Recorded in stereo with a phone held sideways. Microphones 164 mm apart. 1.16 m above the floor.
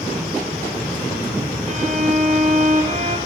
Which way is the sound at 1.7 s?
45° right (ahead or behind).